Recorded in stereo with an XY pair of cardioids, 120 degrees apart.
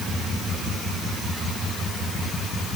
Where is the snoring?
I don't hear snoring.